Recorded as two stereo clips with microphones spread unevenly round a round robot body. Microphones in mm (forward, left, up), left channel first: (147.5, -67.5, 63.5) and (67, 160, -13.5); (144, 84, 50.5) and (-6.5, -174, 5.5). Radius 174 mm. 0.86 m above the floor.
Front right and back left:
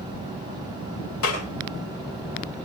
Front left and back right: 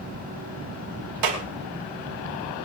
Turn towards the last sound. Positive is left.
turn(degrees=-125)